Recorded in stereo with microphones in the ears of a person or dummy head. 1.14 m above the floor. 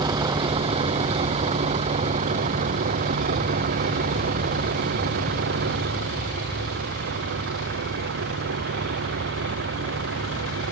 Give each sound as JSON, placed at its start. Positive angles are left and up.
{"t": 0.0, "sound": "a vehicle", "side_deg": -20}